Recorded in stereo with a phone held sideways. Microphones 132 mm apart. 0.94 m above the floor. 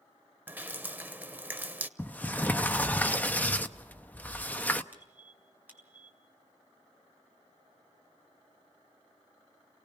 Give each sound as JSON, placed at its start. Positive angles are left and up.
{"t": 0.5, "sound": "dripping", "side_deg": -15, "distance_m": 0.8}
{"t": 2.0, "sound": "a sliding door", "side_deg": 15, "distance_m": 0.7}
{"t": 4.9, "sound": "a squeak", "side_deg": -15, "distance_m": 3.5}